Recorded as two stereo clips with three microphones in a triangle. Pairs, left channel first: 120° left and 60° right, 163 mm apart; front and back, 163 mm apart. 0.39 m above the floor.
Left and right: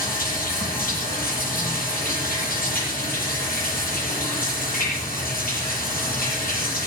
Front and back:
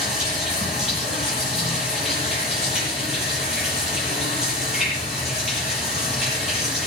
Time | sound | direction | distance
0.0 | running water | 95° left | 8.5 m